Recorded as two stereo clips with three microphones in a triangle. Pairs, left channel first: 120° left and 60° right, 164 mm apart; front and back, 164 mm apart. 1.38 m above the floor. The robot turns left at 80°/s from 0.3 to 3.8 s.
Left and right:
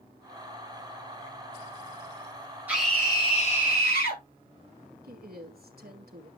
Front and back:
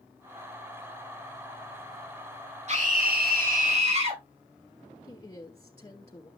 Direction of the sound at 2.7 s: 140° right.